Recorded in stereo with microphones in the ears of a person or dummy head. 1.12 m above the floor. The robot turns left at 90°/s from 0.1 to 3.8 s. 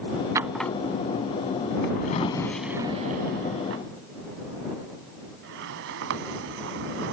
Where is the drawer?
25° right (ahead or behind); by 7.1 s 70° right (ahead or behind).